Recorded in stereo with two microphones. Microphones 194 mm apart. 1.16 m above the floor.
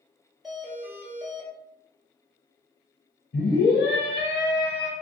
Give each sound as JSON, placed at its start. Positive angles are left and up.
{"t": 0.4, "sound": "a doorbell", "side_deg": 0, "distance_m": 1.0}
{"t": 3.3, "sound": "a scream", "side_deg": 60, "distance_m": 0.8}